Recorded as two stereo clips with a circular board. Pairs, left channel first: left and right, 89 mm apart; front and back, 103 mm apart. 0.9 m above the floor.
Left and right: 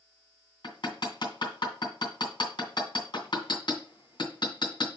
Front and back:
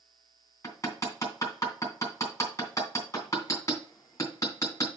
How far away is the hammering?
About 2.5 m.